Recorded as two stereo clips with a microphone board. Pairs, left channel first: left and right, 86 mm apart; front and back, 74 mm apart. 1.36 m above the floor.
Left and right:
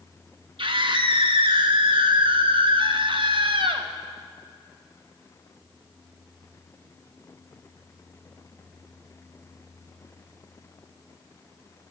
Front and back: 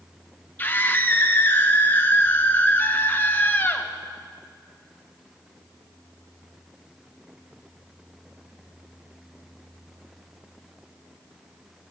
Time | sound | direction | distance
0.6 | a scream | 65° right | 1.2 m